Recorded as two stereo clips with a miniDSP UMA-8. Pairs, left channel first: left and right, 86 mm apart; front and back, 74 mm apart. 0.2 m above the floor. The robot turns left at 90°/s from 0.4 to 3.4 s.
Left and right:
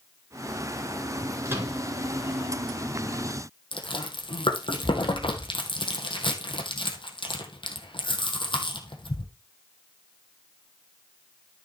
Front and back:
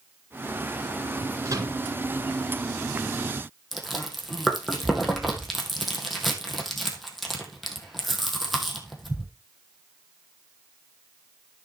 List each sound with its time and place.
1.4 s a microwave: 140° right, 2.5 m; by 1.8 s 175° right, 2.5 m
3.7 s chewing: 90° left, 2.5 m